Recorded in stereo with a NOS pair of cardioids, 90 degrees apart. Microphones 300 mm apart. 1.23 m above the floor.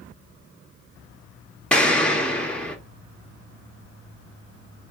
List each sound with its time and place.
1.7 s an explosion: 5° left, 0.8 m